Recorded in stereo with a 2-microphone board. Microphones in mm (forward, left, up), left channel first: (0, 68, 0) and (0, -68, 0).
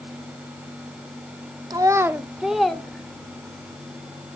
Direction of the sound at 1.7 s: 30° right (ahead or behind).